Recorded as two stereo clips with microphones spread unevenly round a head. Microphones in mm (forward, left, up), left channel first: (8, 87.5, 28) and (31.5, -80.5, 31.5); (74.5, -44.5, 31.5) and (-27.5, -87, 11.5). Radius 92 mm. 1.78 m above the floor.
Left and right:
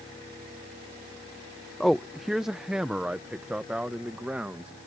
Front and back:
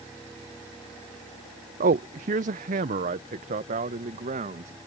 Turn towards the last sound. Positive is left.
turn(degrees=-165)